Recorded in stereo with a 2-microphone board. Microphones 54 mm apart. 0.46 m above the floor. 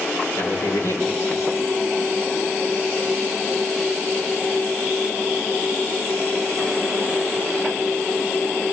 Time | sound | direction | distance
0.4 | a man speaking | 80° left | 8 m